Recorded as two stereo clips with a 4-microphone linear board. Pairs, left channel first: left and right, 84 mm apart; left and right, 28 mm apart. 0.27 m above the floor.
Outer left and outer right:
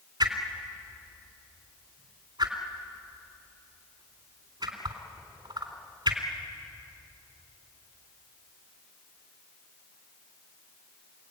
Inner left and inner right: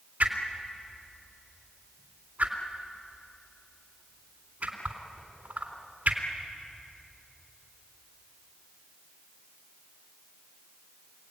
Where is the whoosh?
60° right (ahead or behind), 3.5 m.